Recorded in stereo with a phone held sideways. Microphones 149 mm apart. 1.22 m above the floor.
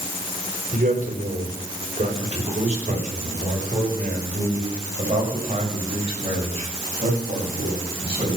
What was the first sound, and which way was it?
A man speaking, 60° right (ahead or behind).